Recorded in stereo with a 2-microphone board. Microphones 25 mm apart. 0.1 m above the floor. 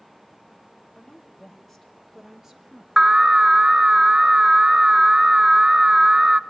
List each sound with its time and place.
0.9 s a woman speaking: 25° left (ahead or behind), 3 m; by 2.9 s 30° right (ahead or behind), 3 m
3.0 s an alarm: 25° right (ahead or behind), 0.9 m